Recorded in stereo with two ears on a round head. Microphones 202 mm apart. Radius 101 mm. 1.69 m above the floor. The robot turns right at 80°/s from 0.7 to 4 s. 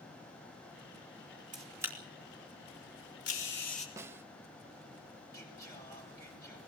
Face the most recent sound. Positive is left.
turn(degrees=15)  # may be behind; listen again after turning